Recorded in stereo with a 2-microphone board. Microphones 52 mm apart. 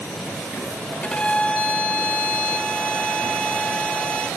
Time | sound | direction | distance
1.0 | a violin | 20° left (ahead or behind) | 0.6 m